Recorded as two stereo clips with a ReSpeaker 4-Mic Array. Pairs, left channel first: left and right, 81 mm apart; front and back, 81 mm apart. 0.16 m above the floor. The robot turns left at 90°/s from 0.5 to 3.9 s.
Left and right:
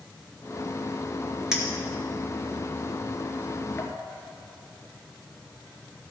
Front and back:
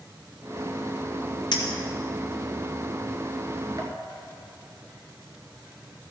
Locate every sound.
1.5 s a clink: 5° right, 2 m; by 3.9 s 140° left, 2 m